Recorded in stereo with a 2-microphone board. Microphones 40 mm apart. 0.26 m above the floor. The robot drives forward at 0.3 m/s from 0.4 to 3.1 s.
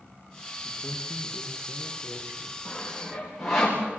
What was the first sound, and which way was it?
A man speaking, 35° right (ahead or behind).